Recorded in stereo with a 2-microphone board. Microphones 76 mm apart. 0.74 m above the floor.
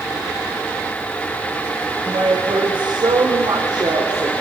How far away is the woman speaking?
About 4 m.